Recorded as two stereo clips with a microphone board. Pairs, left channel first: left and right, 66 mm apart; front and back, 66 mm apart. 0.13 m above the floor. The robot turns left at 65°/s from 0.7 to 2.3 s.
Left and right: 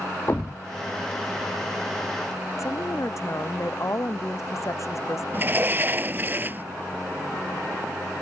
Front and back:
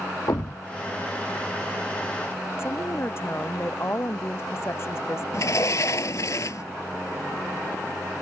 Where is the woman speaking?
50° left.